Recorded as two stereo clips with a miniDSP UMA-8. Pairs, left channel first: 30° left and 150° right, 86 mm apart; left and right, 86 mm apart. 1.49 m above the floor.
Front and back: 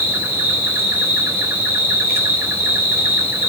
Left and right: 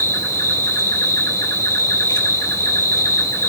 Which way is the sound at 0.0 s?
145° left.